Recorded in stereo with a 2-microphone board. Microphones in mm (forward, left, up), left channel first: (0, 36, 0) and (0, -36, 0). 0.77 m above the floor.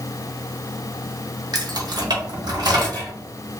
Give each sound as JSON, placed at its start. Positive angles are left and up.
{"t": 1.5, "sound": "keys jangling", "side_deg": -70, "distance_m": 0.6}